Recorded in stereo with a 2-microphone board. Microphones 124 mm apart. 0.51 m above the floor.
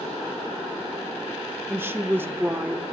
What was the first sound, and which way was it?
A woman speaking, 20° right (ahead or behind).